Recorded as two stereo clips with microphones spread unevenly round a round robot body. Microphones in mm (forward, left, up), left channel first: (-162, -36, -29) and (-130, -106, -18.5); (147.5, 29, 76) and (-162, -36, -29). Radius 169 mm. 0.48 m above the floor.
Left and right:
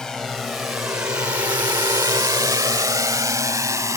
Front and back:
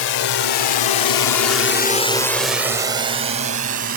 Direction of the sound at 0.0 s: 30° left.